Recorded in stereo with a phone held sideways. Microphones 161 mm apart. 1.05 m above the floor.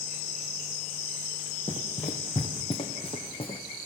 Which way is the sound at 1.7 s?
45° left (ahead or behind).